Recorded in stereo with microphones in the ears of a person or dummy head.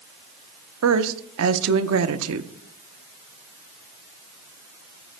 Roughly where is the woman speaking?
Right.